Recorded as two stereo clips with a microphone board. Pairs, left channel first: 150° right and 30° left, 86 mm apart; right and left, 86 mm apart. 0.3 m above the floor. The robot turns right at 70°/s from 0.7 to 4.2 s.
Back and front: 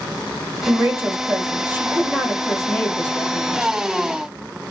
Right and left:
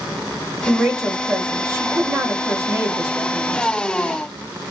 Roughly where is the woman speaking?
Ahead.